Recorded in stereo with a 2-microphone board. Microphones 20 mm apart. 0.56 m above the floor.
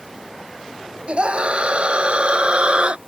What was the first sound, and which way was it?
A scream, 50° right (ahead or behind).